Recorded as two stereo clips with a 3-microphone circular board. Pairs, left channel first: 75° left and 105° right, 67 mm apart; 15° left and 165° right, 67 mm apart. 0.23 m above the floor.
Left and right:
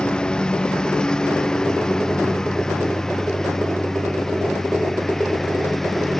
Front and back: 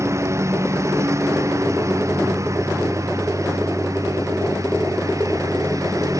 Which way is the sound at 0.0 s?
150° left.